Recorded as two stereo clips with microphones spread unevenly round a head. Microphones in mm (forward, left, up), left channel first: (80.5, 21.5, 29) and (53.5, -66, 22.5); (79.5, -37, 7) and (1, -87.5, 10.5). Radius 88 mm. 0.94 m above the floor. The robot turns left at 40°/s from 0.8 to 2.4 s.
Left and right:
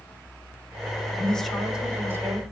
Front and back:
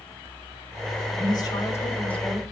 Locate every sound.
1.1 s a woman speaking: 5° right, 4 m; by 2.4 s 55° right, 4 m